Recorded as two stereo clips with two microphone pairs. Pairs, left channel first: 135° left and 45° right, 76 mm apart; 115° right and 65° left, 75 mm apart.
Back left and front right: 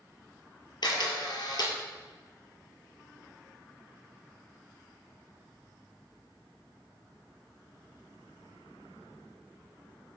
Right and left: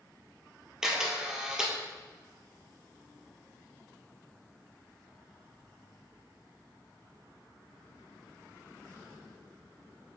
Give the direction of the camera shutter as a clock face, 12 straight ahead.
7 o'clock.